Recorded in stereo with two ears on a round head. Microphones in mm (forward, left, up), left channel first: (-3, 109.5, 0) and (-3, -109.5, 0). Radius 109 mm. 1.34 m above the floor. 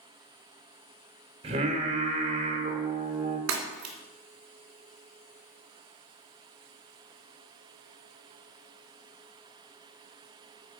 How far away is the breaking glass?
About 2 m.